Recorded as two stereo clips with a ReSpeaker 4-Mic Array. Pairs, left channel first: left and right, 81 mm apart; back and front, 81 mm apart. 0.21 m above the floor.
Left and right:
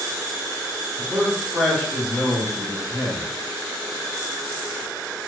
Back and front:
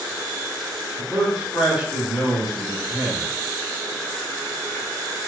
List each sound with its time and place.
1.0 s a man speaking: 50° right, 1.0 m; by 3.3 s 75° left, 1.4 m